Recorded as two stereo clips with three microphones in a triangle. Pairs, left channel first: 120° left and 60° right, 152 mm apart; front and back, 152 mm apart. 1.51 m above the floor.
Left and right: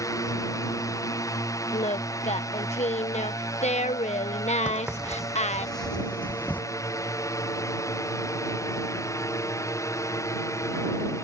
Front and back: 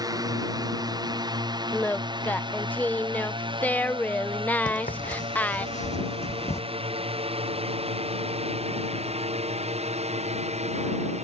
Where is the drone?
155° left; by 11.2 s 175° right.